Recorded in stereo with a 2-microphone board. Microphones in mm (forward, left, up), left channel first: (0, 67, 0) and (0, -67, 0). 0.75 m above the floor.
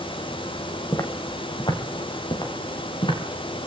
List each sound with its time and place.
0.9 s footsteps: 25° left (ahead or behind), 1.5 m; by 3.2 s 40° left (ahead or behind), 5 m